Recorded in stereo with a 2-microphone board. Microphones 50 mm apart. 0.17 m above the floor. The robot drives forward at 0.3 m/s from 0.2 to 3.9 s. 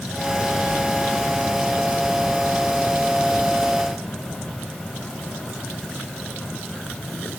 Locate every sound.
Only background noise.